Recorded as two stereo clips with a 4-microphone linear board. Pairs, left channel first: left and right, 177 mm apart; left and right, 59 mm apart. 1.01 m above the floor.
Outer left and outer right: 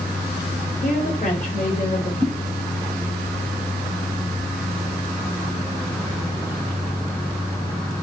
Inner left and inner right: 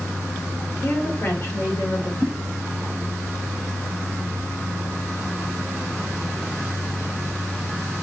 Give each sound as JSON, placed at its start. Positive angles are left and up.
{"t": 0.8, "sound": "a woman speaking", "side_deg": 45, "distance_m": 4.0}
{"t": 2.2, "sound": "a whoosh", "side_deg": 40, "distance_m": 4.0}